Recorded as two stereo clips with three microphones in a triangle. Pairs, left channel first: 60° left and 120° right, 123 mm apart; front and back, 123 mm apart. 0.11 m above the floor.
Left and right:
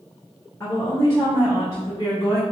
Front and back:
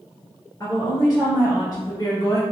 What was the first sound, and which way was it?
A woman speaking, 25° left.